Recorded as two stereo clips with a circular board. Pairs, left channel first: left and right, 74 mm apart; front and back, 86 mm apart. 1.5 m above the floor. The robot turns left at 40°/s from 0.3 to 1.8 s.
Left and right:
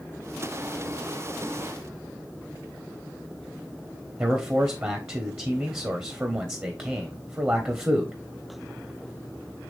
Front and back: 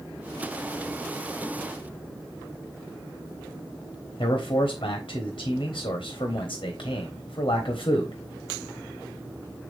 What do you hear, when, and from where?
4.2 s a man speaking: 30° right, 1.2 m